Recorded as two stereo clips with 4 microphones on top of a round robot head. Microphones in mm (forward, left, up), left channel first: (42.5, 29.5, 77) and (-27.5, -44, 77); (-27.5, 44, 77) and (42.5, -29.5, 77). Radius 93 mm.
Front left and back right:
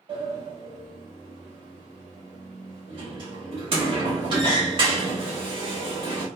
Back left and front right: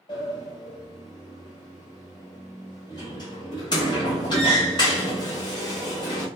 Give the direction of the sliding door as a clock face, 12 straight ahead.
6 o'clock.